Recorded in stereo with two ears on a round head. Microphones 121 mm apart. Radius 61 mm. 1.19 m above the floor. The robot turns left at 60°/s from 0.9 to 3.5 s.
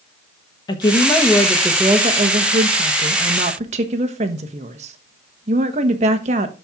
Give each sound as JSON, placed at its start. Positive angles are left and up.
{"t": 0.7, "sound": "a woman speaking", "azimuth_deg": 30, "distance_m": 1.3}